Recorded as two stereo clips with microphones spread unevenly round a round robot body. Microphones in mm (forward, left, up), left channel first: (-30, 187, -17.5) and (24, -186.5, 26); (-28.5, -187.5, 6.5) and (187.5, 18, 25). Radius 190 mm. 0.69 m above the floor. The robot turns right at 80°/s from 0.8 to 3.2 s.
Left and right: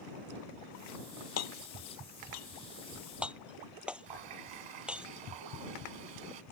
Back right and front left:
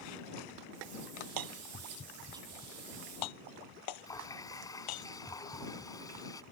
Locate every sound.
1.4 s hammering: 45° left; by 5.1 s 170° right
4.1 s a running tap: 60° right